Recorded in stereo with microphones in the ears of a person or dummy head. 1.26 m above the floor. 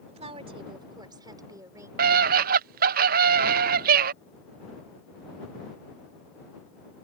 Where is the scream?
50° right (ahead or behind).